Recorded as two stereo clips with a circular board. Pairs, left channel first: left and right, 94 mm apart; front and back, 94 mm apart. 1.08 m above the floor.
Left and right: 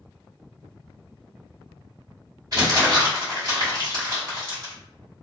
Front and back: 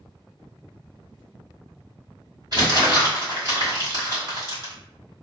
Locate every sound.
2.5 s crumpling: 135° right, 1.8 m